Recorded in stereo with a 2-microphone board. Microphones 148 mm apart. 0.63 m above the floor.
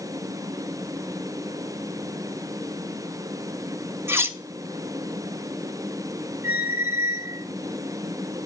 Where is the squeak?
75° left (ahead or behind), 1.0 m.